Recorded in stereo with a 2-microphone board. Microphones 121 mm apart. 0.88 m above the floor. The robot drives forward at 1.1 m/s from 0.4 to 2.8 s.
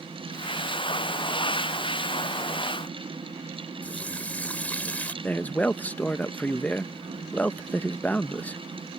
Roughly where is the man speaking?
Centre.